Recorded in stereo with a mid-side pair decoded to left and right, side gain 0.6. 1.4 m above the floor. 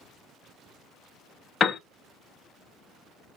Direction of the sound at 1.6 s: 35° left.